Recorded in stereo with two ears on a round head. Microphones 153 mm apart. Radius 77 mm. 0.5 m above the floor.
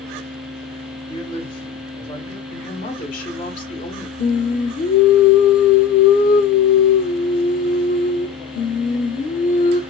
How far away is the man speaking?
About 2.0 m.